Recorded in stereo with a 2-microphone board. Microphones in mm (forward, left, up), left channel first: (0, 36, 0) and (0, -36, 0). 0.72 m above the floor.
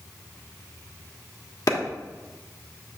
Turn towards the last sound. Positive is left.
turn(degrees=60)  # may be behind; listen again after turning